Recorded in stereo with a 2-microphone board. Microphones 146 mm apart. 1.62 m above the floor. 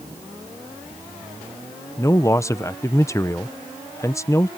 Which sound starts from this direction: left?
A man speaking, at 2.0 s.